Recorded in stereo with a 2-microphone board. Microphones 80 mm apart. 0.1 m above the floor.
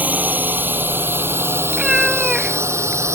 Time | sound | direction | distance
0.0 | a drone | 20° right (ahead or behind) | ?
1.7 | a cat meowing | 5° right (ahead or behind) | ?